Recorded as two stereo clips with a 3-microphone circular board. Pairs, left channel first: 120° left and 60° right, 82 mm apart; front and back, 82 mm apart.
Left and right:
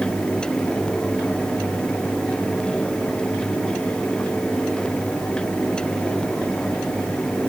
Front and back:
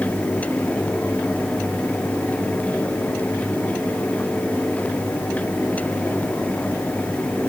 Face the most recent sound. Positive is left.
No sound to turn to.